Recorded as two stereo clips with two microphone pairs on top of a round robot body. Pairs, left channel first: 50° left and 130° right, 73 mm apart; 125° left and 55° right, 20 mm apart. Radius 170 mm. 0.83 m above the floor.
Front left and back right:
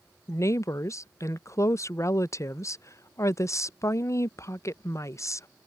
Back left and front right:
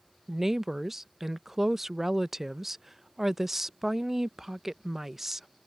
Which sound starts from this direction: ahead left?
A woman speaking, at 0.3 s.